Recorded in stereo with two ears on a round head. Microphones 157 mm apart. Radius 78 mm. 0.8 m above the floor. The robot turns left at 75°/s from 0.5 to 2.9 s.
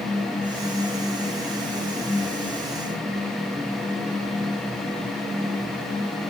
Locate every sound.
Only background noise.